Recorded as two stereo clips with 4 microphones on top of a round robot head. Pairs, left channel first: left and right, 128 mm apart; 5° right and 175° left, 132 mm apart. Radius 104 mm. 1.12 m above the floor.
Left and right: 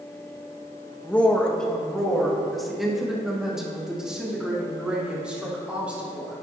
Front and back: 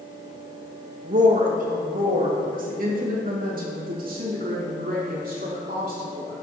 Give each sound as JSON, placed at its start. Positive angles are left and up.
{"t": 1.0, "sound": "a woman speaking", "azimuth_deg": 170, "distance_m": 1.6}